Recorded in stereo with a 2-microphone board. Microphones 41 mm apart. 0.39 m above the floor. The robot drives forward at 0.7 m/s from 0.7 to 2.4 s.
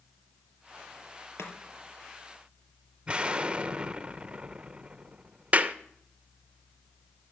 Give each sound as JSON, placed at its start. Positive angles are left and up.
{"t": 1.4, "sound": "chopping", "side_deg": 80, "distance_m": 2.5}
{"t": 3.1, "sound": "an explosion", "side_deg": -25, "distance_m": 0.7}
{"t": 5.5, "sound": "a clap", "side_deg": -35, "distance_m": 0.6}